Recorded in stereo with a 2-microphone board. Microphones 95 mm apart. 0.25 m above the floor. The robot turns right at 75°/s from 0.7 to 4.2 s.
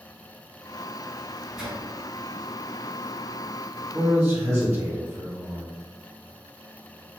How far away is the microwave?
About 1.1 m.